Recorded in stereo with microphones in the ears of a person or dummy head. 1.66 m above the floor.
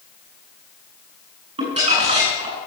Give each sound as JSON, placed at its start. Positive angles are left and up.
{"t": 1.6, "sound": "crumpling", "side_deg": -30, "distance_m": 6.5}